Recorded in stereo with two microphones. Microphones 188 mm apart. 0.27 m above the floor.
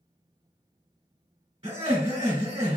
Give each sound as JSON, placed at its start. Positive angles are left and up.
{"t": 1.6, "sound": "laughter", "side_deg": -25, "distance_m": 1.5}